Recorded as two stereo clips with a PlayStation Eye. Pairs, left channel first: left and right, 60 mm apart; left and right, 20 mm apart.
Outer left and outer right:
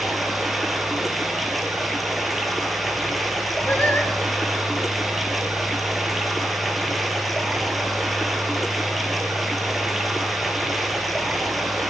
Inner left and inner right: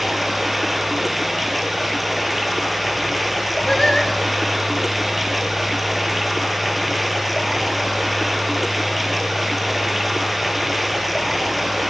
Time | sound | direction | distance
0.0 | running water | centre (ahead or behind) | 1.7 m
3.7 | singing | 30° left (ahead or behind) | 2 m